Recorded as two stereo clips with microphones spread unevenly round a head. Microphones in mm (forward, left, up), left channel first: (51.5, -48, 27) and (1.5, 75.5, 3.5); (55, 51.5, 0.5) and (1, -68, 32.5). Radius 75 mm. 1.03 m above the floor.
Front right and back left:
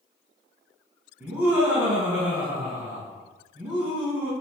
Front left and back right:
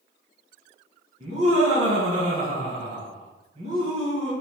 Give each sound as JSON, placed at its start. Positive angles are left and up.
{"t": 1.2, "sound": "laughter", "azimuth_deg": 180, "distance_m": 1.0}